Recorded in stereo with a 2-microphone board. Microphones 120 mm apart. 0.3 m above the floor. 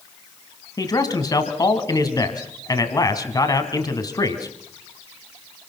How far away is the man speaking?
About 2.5 m.